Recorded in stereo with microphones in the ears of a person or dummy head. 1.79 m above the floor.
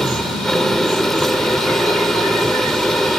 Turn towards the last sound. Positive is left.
turn(degrees=0)  # may be behind; listen again after turning